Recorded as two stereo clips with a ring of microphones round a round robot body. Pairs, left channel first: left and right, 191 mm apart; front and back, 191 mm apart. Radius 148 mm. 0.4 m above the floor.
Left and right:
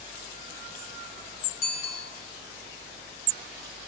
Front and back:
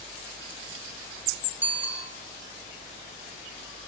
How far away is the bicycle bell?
About 4 m.